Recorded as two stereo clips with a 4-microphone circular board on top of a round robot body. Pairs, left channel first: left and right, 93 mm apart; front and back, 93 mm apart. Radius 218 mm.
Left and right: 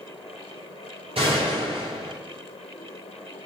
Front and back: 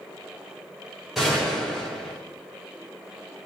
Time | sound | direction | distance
1.1 | a gunshot | 90° right | 6.5 m